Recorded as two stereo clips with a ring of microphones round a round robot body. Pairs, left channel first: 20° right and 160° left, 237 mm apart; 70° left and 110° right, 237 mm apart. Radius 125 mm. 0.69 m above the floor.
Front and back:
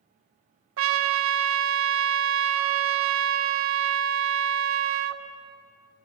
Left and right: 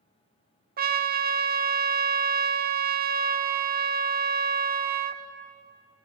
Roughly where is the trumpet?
Behind.